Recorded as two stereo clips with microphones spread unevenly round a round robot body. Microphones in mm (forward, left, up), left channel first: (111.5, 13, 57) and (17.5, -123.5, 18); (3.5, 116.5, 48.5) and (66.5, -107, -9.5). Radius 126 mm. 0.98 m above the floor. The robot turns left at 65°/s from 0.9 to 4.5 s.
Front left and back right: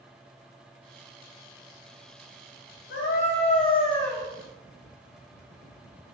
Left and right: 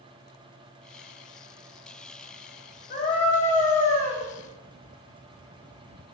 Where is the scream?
60° left, 6 m; by 4.2 s 25° right, 6 m.